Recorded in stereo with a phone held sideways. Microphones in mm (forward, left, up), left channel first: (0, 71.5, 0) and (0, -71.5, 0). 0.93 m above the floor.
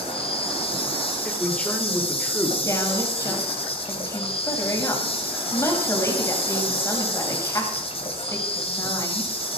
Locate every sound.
0.0 s an insect: 40° left (ahead or behind), 2.5 m
1.2 s a man speaking: 10° left (ahead or behind), 3 m
2.6 s a woman speaking: 20° left (ahead or behind), 4.5 m